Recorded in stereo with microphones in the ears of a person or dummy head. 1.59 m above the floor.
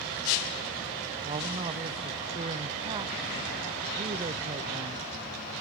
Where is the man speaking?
25° right (ahead or behind), 0.9 m.